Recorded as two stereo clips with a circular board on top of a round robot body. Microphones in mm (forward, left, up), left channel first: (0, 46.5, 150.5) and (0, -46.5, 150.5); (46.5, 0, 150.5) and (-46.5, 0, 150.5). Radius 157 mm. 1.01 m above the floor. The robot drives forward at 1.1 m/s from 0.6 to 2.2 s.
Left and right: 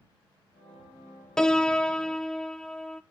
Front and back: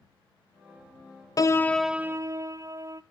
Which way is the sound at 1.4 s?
10° left.